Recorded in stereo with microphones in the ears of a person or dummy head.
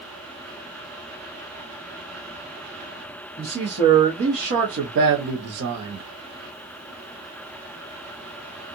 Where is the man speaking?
20° right (ahead or behind), 1.3 m; by 6.0 s 55° right (ahead or behind), 1.0 m.